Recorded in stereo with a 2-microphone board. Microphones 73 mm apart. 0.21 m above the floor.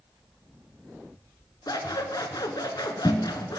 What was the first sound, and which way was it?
Scissors, 70° left (ahead or behind).